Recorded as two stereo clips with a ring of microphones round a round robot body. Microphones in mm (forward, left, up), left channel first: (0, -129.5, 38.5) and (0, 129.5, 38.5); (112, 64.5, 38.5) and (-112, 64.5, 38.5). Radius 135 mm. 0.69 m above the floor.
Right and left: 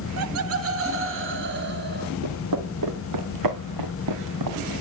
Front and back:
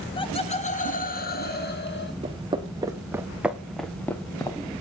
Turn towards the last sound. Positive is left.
turn(degrees=70)